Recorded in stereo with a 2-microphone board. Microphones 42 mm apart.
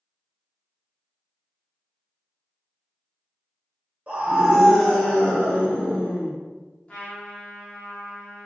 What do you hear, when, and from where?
4.1 s a scream: 30° right (ahead or behind), 0.7 m; by 6.3 s 50° left (ahead or behind), 1.1 m
6.9 s a trumpet: 30° left (ahead or behind), 0.7 m